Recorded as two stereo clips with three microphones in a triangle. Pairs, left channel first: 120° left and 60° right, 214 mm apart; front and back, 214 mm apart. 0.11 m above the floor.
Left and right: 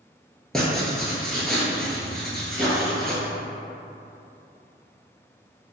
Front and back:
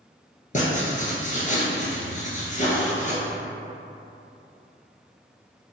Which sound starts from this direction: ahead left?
Writing, at 0.5 s.